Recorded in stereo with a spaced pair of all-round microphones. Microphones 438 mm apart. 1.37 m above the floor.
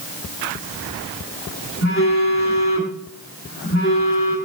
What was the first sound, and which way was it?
A phone buzzing, 30° left (ahead or behind).